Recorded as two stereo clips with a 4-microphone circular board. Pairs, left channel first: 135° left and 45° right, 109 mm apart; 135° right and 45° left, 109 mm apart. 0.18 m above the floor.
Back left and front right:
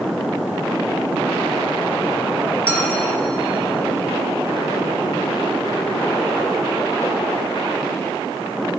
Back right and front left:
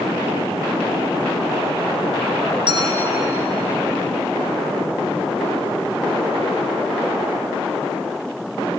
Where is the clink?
60° left, 1.9 m.